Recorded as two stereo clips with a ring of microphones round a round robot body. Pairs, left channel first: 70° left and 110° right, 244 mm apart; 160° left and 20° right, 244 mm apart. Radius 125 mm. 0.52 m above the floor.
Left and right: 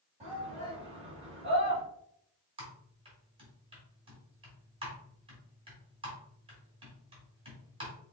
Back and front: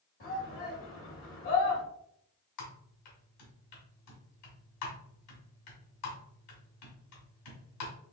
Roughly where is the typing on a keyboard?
Behind.